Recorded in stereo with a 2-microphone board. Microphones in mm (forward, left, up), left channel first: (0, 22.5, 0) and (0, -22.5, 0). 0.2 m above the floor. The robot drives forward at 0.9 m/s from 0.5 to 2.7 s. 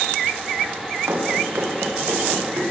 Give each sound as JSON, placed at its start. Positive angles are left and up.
{"t": 1.1, "sound": "running footsteps", "side_deg": -70, "distance_m": 8.5}